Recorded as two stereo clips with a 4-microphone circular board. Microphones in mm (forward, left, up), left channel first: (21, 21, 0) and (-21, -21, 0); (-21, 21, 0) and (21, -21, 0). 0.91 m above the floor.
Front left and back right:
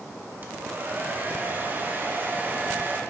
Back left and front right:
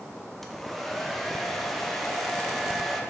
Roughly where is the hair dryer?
Behind right.